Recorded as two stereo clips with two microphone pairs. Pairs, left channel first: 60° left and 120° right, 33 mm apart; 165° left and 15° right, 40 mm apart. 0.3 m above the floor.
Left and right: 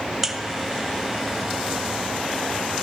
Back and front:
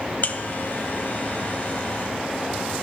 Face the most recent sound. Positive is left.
turn(degrees=155)